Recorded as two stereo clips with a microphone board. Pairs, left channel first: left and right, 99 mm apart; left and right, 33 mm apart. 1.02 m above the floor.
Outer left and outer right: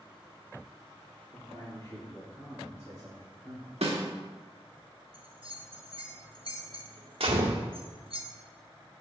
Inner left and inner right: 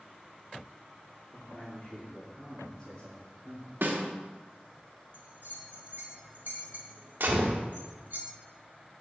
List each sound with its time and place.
1.3 s a man speaking: 40° left (ahead or behind), 3 m; by 3.7 s 5° right (ahead or behind), 3 m
3.8 s a snare drum: 80° right, 2.0 m
5.1 s a bell: 55° right (ahead or behind), 1.5 m
7.2 s a gunshot: 70° right (ahead or behind), 1.7 m